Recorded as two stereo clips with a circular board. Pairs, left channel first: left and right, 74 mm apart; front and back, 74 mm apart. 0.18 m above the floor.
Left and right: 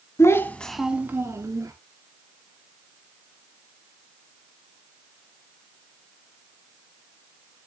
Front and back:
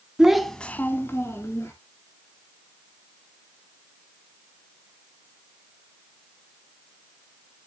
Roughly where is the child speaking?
Left.